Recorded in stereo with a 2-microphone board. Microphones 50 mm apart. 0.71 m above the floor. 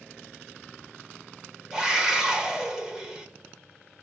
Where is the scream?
10° right (ahead or behind), 2.5 m.